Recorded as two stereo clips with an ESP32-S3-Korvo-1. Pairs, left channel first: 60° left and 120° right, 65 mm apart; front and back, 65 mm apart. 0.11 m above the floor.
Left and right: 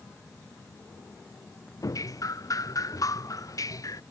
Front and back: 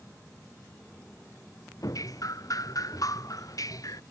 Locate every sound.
1.8 s dripping: 30° left